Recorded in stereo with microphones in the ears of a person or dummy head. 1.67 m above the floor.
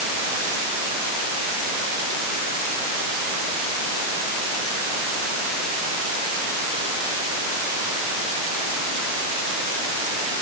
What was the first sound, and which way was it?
Only background noise.